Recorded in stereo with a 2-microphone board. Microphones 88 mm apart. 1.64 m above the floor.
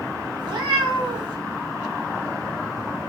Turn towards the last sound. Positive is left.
turn(degrees=-55)  # may be behind; listen again after turning